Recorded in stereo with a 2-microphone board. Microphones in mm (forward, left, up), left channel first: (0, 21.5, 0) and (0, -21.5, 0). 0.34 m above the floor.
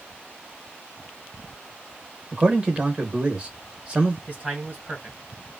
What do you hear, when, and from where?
2.3 s a man speaking: 25° right (ahead or behind), 1.1 m
4.3 s a man speaking: 35° right (ahead or behind), 1.6 m